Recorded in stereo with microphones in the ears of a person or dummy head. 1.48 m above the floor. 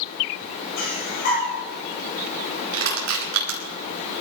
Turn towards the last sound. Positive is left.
turn(degrees=-75)  # may be behind; listen again after turning